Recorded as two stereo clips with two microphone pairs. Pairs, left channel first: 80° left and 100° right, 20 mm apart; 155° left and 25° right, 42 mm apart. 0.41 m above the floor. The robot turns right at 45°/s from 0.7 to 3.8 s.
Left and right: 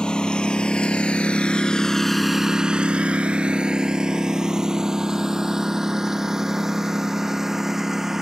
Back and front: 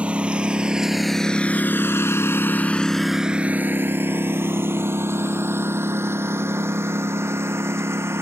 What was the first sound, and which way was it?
A lawn mower, 40° left.